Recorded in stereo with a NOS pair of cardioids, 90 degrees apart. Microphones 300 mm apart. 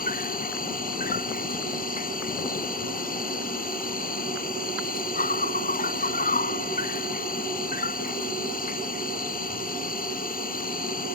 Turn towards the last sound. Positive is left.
turn(degrees=30)